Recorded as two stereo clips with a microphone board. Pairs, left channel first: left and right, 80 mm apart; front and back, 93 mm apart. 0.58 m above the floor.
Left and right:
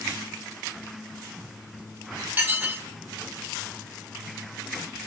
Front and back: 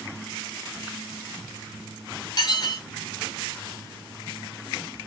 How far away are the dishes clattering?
About 0.9 m.